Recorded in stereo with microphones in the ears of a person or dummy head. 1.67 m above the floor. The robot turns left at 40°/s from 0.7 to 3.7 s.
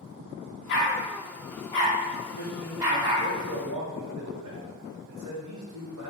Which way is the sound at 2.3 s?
40° right.